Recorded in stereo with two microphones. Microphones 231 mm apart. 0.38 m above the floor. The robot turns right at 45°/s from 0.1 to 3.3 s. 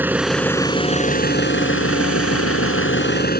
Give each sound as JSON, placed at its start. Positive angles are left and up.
{"t": 0.0, "sound": "an engine running", "azimuth_deg": -10}